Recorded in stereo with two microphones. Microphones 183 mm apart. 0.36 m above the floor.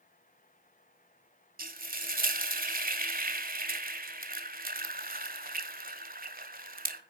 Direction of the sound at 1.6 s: 50° right (ahead or behind).